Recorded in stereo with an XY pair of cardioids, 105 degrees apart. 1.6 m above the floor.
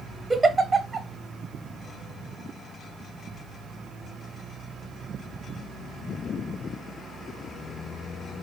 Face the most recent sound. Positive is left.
turn(degrees=-20)